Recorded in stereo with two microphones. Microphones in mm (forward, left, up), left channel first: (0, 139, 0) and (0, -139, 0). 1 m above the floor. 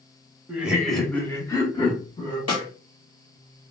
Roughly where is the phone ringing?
No phone ringing in this recording.